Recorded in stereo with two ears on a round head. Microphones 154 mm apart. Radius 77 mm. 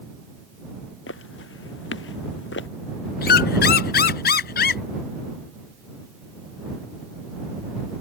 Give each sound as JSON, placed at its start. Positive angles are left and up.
{"t": 1.1, "sound": "footsteps", "side_deg": 80}
{"t": 3.2, "sound": "a squeak", "side_deg": 65}